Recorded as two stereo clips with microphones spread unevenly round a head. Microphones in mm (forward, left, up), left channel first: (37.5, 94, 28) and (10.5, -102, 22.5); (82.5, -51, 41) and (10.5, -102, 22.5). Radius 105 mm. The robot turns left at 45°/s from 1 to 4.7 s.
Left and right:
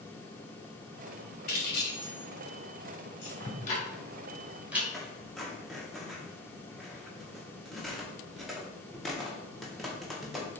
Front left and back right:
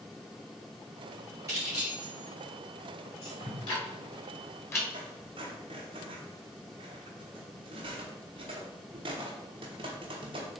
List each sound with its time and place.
1.5 s keys jangling: 140° left, 2 m; by 3.3 s 60° left, 2 m
3.4 s ticking: 45° left, 2.5 m; by 4.8 s 15° right, 2.5 m
4.9 s a squeak: 170° left, 0.5 m